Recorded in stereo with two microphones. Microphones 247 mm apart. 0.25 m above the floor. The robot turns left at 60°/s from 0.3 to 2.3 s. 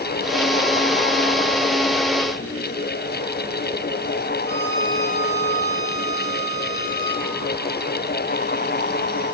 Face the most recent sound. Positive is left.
turn(degrees=-40)  # may be behind; listen again after turning